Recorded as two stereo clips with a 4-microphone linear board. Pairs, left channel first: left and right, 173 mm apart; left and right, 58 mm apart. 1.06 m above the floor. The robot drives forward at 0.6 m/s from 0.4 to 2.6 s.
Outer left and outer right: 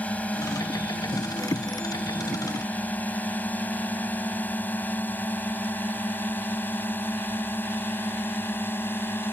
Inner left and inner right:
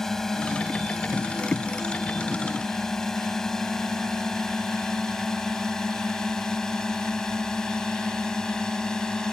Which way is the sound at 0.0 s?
5° left (ahead or behind).